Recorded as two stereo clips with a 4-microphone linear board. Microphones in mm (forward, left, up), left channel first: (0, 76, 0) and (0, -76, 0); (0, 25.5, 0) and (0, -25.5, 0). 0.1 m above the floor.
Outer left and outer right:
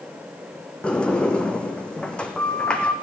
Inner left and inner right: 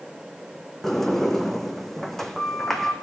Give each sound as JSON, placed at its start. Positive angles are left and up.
{"t": 0.8, "sound": "a sliding door", "side_deg": 5, "distance_m": 1.2}